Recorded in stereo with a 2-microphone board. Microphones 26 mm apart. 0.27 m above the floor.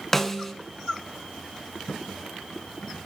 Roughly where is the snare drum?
Centre.